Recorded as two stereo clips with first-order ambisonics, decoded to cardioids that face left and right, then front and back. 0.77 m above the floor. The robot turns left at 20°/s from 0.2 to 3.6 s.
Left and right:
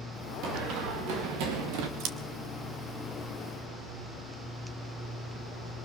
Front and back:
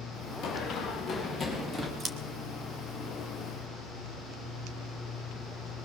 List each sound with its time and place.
0.4 s running footsteps: 55° right, 6.5 m; by 1.9 s 100° right, 5 m
2.0 s scissors: 115° right, 2.5 m